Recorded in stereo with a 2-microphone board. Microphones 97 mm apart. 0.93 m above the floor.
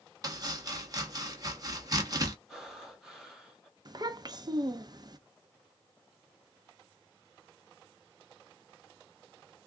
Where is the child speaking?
40° right (ahead or behind), 0.6 m.